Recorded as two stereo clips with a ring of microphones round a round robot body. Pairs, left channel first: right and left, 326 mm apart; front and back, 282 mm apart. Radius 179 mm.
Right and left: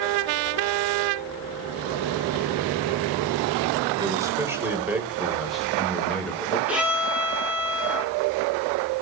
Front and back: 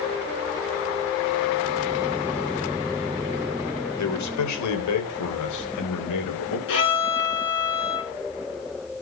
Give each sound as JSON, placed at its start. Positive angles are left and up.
{"t": 4.0, "sound": "a man speaking", "azimuth_deg": 10, "distance_m": 3.5}
{"t": 6.7, "sound": "a violin", "azimuth_deg": 5, "distance_m": 5.5}